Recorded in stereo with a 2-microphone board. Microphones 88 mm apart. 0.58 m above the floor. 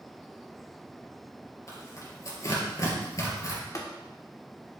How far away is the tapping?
About 1.8 m.